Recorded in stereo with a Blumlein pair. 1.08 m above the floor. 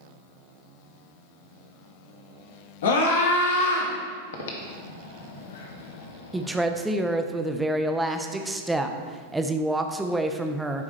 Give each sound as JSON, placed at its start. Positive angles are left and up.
{"t": 2.8, "sound": "a scream", "azimuth_deg": 60, "distance_m": 2.0}
{"t": 4.3, "sound": "breathing", "azimuth_deg": 60, "distance_m": 1.2}
{"t": 6.3, "sound": "a woman speaking", "azimuth_deg": -5, "distance_m": 0.8}